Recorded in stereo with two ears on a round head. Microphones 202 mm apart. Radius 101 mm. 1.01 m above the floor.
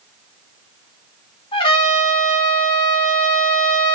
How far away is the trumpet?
About 2 m.